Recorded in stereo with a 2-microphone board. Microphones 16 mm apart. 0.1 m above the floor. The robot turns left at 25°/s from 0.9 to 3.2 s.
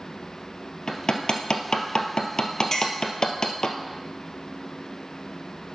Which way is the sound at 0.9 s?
50° left (ahead or behind).